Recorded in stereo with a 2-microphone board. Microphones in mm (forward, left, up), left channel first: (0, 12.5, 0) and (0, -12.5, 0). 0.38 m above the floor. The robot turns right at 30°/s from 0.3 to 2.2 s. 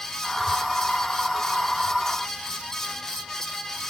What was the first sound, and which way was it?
Only background noise.